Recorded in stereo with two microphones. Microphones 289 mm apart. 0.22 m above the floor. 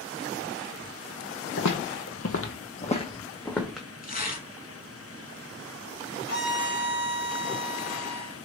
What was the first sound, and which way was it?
Footsteps, 70° left (ahead or behind).